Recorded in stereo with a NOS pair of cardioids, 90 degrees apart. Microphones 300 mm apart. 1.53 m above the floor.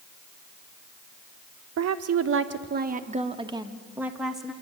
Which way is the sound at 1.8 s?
65° right.